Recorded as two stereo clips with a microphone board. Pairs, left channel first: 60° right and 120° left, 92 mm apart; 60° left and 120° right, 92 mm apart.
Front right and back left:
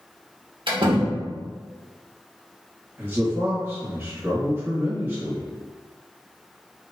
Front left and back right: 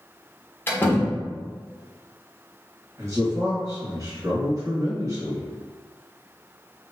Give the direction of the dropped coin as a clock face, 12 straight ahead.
No dropped coin in this recording.